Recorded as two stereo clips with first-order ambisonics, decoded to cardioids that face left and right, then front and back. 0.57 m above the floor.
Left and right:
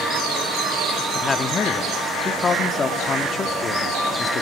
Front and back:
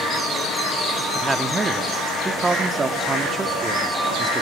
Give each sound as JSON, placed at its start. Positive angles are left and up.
{"t": 1.1, "sound": "a man speaking", "azimuth_deg": 125, "distance_m": 0.8}